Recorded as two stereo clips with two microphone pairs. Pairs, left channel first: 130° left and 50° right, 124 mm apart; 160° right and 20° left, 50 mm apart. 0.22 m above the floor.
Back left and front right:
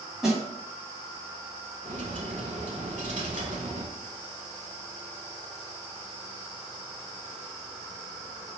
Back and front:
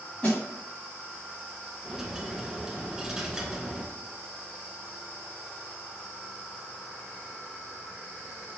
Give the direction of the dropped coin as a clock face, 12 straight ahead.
2 o'clock.